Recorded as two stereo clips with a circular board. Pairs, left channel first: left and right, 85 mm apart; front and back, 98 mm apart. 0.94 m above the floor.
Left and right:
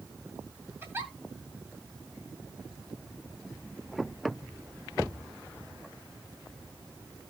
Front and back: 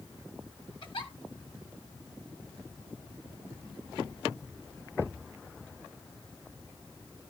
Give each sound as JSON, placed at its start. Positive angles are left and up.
{"t": 0.8, "sound": "a giggle", "azimuth_deg": -25, "distance_m": 2.0}